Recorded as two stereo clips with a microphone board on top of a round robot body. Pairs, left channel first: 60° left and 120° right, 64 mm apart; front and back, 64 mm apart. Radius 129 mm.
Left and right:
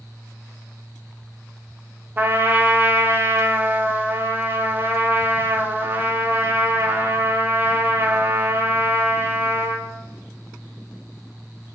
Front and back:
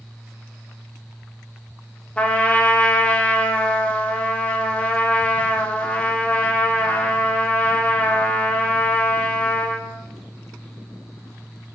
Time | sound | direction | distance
2.2 | a trumpet | 70° right | 0.5 m